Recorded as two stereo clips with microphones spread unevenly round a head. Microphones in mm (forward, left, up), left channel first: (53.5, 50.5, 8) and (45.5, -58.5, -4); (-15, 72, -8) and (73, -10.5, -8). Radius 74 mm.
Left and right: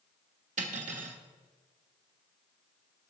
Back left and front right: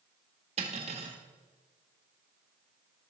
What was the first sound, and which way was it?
Cutlery clinking, 100° right.